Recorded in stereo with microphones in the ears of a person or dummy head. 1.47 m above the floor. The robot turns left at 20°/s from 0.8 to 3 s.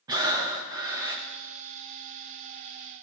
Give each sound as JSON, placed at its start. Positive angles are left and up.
{"t": 0.1, "sound": "breathing", "side_deg": -20, "distance_m": 0.7}